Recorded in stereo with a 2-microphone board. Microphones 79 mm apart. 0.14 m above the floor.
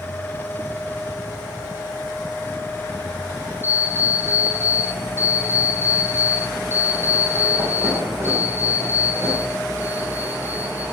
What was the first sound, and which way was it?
An alarm clock, 30° right (ahead or behind).